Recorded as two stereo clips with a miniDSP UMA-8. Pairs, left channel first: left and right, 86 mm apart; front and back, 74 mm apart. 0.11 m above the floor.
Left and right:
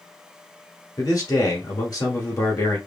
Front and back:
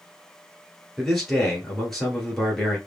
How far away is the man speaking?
About 1.8 m.